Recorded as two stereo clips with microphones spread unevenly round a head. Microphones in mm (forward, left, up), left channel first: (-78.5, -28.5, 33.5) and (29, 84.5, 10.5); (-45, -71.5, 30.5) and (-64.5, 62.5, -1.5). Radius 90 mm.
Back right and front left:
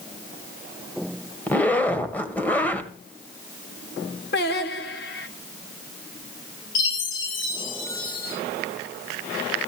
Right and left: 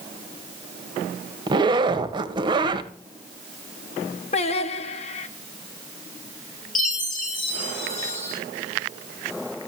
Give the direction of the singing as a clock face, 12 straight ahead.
4 o'clock.